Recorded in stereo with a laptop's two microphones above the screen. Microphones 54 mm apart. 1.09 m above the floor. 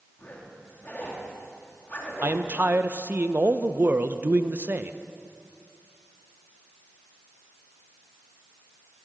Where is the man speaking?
35° right (ahead or behind), 0.6 m.